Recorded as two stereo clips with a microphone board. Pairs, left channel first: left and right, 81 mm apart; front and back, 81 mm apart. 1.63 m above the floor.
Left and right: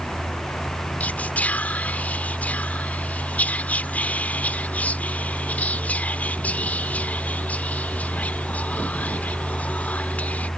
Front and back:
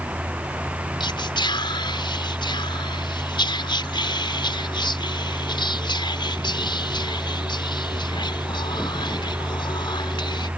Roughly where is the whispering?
Ahead.